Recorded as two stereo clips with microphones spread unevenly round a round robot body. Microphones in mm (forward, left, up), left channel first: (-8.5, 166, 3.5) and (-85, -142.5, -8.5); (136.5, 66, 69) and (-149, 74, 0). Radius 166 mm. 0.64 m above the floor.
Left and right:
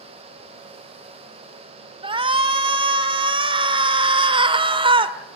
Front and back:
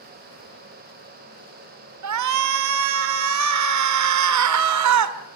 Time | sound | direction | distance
2.0 | a shout | 175° right | 1.8 m